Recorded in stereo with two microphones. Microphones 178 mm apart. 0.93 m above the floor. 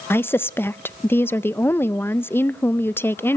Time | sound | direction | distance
0.1 | a woman speaking | 15° left (ahead or behind) | 0.5 m